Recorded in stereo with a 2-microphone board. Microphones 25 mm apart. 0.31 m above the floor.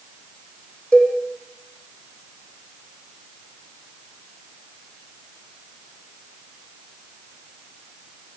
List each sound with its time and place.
0.9 s a cowbell: 40° left (ahead or behind), 6.5 m